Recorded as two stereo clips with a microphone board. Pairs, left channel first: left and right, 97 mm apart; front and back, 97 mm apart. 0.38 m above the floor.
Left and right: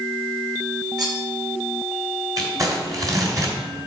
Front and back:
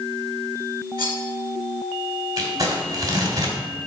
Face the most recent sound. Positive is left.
turn(degrees=-135)